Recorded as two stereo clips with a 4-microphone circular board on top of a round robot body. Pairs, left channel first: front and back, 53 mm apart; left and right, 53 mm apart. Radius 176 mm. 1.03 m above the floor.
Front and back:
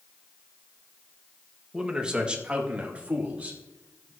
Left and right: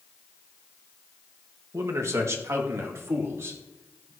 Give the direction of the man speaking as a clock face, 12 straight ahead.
3 o'clock.